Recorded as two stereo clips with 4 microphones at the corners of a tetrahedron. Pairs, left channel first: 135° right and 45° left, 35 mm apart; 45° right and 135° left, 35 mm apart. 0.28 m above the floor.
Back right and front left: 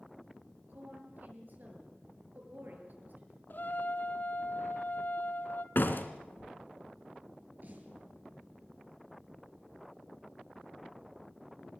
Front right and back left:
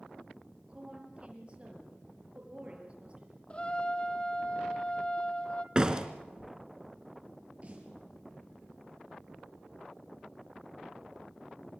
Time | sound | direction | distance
0.7 | a woman speaking | 75° left | 6.5 m
3.5 | a trumpet | 105° right | 1.3 m
5.8 | a door slam | 160° right | 2 m
7.6 | a snare drum | 80° left | 6.5 m